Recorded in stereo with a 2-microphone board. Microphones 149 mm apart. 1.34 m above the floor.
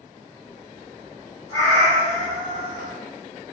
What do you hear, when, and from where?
1.5 s a cat meowing: 20° left (ahead or behind), 1.9 m